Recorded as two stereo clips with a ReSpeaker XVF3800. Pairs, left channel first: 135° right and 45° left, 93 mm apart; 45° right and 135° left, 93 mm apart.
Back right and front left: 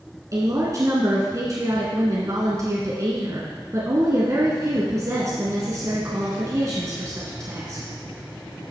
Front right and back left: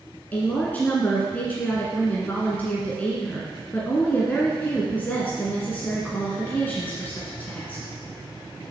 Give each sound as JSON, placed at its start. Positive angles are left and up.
{"t": 0.3, "sound": "a woman speaking", "azimuth_deg": 15, "distance_m": 1.6}